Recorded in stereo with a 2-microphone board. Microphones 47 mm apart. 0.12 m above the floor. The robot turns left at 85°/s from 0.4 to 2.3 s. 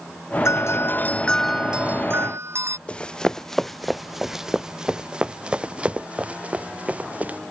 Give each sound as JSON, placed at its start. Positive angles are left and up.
{"t": 0.5, "sound": "a doorbell", "azimuth_deg": 90}
{"t": 2.9, "sound": "running footsteps", "side_deg": 25}